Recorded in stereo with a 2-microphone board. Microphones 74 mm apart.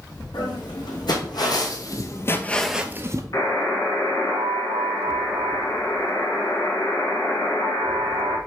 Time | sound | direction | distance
0.3 | footsteps | 75° left (ahead or behind) | 3 m
3.3 | a buzzer | 45° left (ahead or behind) | 1.7 m